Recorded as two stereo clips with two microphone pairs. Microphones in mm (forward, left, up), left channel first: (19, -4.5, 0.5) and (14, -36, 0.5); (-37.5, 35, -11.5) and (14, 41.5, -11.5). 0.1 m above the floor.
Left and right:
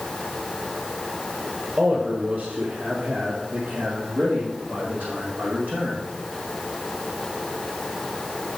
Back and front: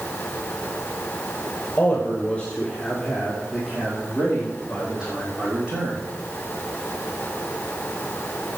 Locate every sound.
1.8 s a man speaking: 120° right, 2.5 m; by 6.0 s 60° right, 4.5 m